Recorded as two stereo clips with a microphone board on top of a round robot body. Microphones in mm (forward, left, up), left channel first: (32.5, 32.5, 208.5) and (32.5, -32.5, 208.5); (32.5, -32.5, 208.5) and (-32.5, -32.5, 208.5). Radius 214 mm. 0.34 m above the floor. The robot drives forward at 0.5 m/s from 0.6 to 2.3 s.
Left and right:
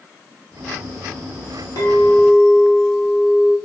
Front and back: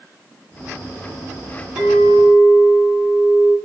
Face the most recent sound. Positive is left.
turn(degrees=120)